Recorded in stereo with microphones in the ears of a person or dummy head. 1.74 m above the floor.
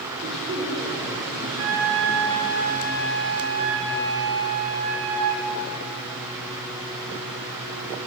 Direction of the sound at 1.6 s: 65° right (ahead or behind).